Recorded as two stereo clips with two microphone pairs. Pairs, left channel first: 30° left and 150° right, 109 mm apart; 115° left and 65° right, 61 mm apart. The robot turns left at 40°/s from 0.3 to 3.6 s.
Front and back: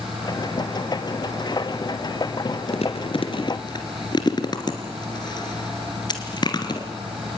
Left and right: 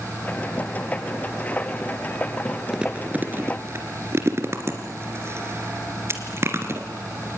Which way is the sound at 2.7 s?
15° left.